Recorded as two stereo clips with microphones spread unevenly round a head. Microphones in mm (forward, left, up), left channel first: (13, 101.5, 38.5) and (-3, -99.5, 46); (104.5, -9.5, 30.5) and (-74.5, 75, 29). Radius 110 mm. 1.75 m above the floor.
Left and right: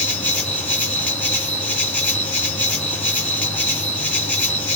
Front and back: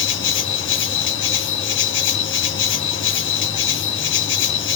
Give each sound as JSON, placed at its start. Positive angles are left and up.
{"t": 0.0, "sound": "an insect", "azimuth_deg": 5, "distance_m": 1.6}